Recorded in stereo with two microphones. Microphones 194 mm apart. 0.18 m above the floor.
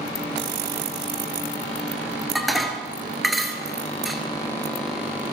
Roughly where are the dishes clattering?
Centre.